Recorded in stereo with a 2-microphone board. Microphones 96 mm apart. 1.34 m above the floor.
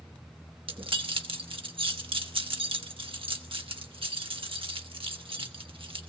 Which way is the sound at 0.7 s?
65° right (ahead or behind).